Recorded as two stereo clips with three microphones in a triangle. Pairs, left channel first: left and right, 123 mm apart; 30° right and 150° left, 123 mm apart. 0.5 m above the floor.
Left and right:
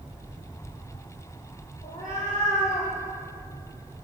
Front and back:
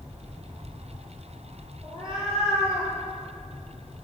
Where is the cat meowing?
105° left, 6.5 m.